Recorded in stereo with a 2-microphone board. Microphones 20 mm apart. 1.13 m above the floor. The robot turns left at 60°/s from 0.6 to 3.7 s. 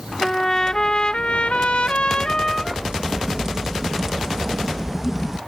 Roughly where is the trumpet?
Behind left.